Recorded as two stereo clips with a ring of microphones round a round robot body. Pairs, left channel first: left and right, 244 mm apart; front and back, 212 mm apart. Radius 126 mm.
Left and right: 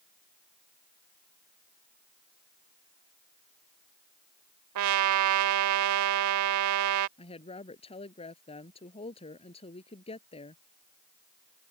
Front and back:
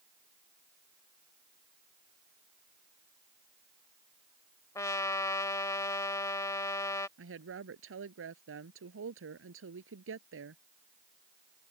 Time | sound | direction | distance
4.8 | a trumpet | 80° right | ?
7.2 | a woman speaking | 160° left | ?